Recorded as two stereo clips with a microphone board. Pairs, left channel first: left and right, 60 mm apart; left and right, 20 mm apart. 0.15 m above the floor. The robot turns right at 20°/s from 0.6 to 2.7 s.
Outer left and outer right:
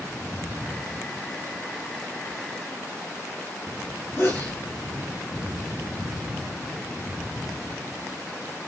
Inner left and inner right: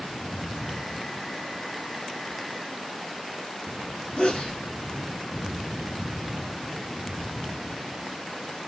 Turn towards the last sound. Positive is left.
turn(degrees=40)  # may be behind; listen again after turning